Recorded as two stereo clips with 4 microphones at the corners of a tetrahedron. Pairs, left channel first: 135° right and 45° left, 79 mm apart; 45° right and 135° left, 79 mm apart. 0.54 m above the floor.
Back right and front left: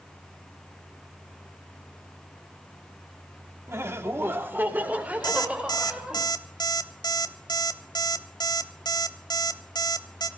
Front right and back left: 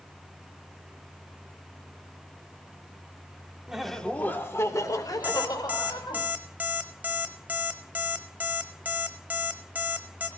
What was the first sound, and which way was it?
Laughter, 60° left.